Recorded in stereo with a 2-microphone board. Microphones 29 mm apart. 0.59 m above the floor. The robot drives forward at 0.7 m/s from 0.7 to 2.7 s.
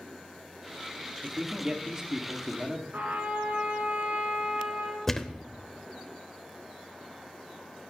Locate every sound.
1.2 s a man speaking: 30° right (ahead or behind), 1.3 m; by 2.8 s 25° right (ahead or behind), 1.6 m
2.9 s a trumpet: 80° right, 3 m
5.1 s a thud: 15° left (ahead or behind), 0.7 m